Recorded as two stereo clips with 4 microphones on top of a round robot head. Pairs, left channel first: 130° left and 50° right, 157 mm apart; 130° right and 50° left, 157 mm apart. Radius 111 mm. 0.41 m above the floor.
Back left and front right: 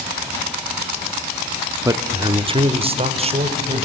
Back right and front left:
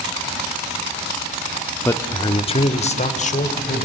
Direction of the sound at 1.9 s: 80° right.